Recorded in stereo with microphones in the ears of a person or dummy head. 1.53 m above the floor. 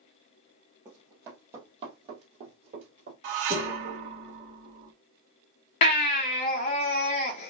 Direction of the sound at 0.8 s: 15° right (ahead or behind).